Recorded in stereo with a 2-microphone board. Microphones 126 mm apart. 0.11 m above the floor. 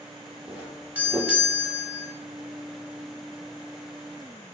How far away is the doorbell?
About 1.5 m.